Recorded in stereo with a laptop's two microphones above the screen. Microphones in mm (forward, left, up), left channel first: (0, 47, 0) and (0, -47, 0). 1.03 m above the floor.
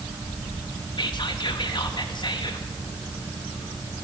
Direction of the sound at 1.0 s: 55° left (ahead or behind).